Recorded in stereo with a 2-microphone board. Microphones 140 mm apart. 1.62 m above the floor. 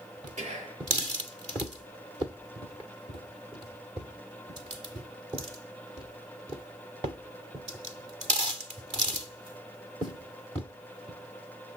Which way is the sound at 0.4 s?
55° right (ahead or behind).